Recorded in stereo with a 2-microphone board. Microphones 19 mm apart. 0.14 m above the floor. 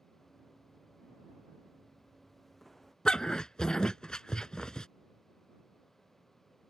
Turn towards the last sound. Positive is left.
turn(degrees=45)  # may be behind; listen again after turning